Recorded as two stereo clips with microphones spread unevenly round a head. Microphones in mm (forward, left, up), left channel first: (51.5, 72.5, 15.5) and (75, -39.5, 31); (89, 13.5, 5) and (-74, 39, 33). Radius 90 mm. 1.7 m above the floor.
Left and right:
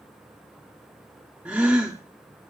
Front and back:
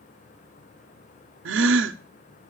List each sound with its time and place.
1.4 s a gasp: 160° right, 0.7 m